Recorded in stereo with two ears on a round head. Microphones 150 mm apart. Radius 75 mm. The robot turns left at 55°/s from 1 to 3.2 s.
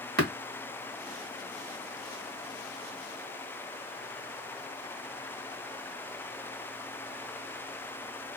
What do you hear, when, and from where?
0.2 s tapping: 60° right (ahead or behind), 1.4 m